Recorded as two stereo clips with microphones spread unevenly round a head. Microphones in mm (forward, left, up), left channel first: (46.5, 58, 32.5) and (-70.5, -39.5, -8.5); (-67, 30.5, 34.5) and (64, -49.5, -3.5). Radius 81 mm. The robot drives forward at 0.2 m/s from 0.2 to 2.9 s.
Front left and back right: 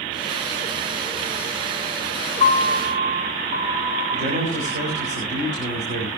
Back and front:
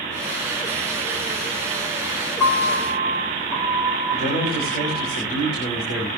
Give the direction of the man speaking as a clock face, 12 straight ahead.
6 o'clock.